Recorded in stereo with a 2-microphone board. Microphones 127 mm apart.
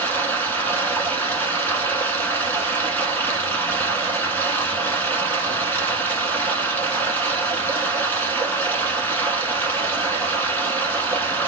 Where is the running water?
15° left (ahead or behind), 1.1 m.